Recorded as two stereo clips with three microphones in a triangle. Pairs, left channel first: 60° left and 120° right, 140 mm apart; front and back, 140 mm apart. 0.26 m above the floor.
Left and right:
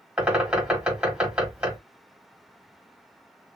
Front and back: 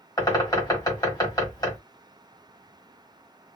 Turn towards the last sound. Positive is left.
turn(degrees=-45)